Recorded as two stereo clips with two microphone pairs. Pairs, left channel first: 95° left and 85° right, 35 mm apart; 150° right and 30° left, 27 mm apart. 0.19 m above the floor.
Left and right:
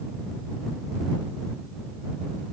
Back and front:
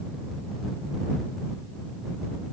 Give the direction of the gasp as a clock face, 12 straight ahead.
No gasp in this recording.